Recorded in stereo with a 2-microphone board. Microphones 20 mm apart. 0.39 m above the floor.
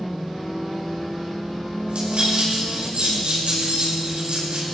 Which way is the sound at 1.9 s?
85° right.